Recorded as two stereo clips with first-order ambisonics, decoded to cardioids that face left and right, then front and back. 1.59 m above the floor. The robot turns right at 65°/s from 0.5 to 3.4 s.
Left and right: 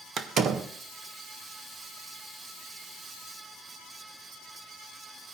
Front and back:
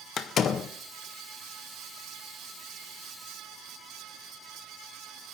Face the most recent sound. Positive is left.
turn(degrees=140)